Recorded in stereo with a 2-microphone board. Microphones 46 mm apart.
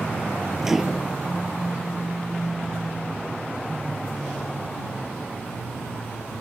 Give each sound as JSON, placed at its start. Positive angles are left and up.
{"t": 0.6, "sound": "a microwave", "side_deg": -10}